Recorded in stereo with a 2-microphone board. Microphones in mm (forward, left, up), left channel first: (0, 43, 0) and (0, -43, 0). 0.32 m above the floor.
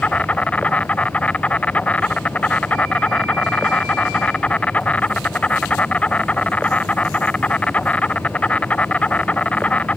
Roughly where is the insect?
Centre.